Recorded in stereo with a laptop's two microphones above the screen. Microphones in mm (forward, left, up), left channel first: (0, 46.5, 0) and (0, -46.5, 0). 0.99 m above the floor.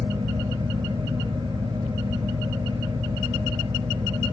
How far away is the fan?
About 1.1 m.